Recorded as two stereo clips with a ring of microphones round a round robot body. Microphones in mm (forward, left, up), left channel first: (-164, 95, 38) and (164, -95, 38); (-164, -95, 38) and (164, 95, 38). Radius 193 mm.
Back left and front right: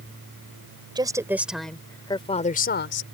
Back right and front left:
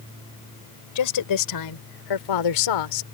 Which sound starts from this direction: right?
A woman speaking, at 0.9 s.